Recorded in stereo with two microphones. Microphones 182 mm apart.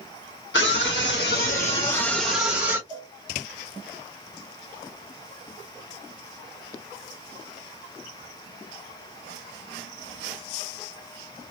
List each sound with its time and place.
0.5 s a scream: 75° left (ahead or behind), 1.0 m; by 2.8 s 20° right (ahead or behind), 1.0 m
2.9 s a cowbell: 30° right (ahead or behind), 1.2 m